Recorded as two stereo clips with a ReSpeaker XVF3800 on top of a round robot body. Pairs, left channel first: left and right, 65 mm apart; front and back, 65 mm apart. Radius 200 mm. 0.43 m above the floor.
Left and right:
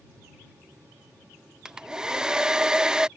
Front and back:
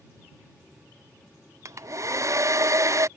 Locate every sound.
1.6 s a hair dryer: 165° right